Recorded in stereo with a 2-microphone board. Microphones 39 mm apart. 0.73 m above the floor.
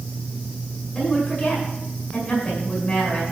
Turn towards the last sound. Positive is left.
turn(degrees=35)  # may be behind; listen again after turning